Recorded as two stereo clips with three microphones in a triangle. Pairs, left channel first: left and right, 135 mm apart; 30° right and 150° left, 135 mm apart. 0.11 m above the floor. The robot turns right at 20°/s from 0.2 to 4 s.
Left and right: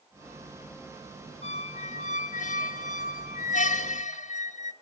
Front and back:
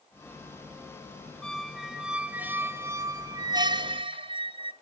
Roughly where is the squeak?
Ahead left.